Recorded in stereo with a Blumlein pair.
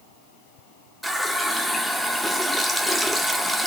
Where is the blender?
No blender in this recording.